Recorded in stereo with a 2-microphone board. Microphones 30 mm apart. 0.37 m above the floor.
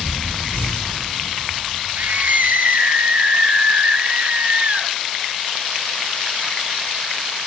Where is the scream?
60° right (ahead or behind), 6 m; by 5.0 s 45° right (ahead or behind), 5 m.